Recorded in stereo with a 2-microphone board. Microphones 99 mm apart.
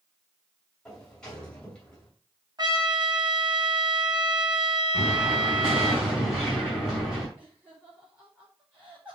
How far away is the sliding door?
About 2.5 m.